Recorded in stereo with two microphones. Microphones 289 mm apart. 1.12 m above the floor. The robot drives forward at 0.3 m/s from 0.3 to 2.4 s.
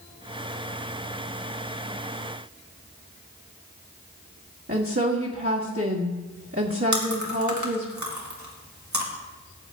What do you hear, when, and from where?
4.7 s a woman speaking: 50° right (ahead or behind), 1.8 m
6.9 s chewing: 70° right (ahead or behind), 2 m